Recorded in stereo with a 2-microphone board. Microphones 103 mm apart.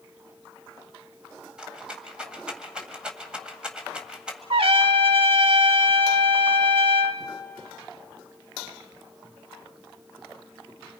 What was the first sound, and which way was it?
A rattle, 10° right (ahead or behind).